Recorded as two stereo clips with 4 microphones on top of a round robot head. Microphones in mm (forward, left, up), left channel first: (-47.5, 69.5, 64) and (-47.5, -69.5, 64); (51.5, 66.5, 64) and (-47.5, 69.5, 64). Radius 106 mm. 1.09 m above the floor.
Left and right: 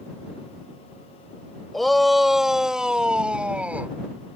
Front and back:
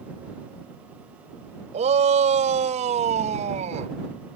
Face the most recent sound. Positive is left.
turn(degrees=-170)